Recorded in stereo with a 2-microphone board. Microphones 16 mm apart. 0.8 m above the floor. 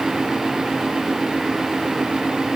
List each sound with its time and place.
Only background noise.